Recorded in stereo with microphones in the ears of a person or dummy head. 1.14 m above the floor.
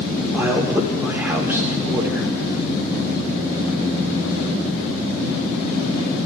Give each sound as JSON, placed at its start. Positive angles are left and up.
{"t": 0.3, "sound": "a man speaking", "side_deg": -10, "distance_m": 1.4}